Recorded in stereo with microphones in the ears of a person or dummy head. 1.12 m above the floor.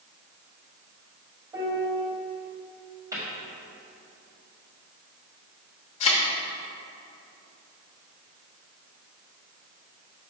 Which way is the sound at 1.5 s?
15° right (ahead or behind).